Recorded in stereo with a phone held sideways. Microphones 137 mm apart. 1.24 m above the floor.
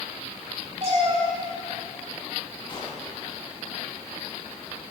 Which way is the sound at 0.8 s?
50° right (ahead or behind).